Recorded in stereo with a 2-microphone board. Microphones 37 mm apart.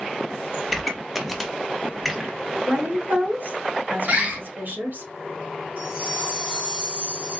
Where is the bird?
40° right (ahead or behind), 1.3 m.